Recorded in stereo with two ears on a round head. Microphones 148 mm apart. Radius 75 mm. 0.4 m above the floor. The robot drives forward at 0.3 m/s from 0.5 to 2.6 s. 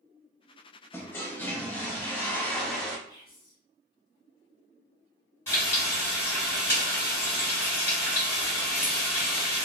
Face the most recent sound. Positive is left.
turn(degrees=15)  # may be behind; listen again after turning